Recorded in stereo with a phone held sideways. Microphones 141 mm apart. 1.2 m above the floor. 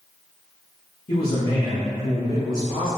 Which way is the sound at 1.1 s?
85° left.